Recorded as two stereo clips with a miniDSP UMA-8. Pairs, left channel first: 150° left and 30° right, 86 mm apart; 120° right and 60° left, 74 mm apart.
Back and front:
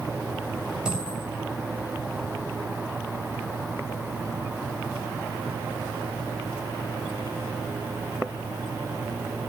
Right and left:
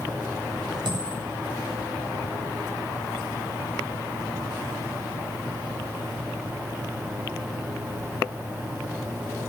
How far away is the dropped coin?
About 7.5 m.